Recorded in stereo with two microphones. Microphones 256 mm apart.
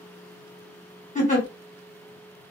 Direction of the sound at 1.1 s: 30° left (ahead or behind).